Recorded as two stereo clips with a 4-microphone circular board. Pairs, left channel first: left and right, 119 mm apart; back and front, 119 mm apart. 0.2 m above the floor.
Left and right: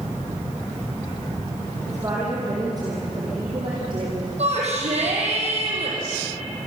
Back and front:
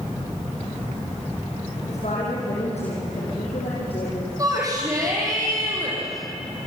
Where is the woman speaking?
155° right, 7 m; by 4.3 s 135° right, 6.5 m.